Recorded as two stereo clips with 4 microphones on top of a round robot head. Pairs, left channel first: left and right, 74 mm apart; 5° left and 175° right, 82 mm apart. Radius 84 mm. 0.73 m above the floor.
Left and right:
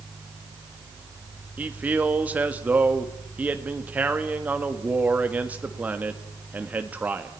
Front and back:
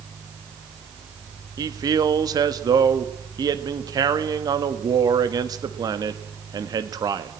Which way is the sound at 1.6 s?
155° right.